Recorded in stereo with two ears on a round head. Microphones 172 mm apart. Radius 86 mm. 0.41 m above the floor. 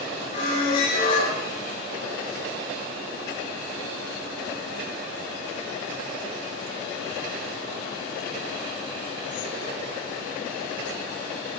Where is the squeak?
45° left (ahead or behind), 6.5 m.